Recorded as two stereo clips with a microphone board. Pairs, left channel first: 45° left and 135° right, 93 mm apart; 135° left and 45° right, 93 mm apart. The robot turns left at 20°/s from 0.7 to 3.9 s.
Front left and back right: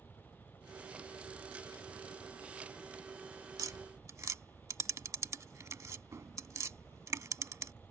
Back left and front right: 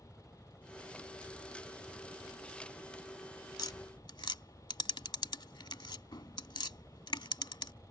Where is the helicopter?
30° left; by 7.9 s 35° right.